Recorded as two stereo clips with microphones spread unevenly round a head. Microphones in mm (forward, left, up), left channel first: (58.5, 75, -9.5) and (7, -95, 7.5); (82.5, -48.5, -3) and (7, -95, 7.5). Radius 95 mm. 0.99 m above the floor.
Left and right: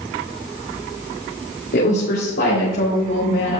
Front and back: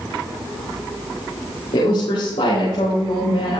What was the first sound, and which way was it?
A woman speaking, 50° left.